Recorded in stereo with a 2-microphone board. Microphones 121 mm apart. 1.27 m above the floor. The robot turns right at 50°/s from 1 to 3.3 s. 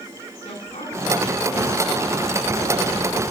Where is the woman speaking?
130° left, 9.5 m; by 3.2 s 120° right, 9.5 m.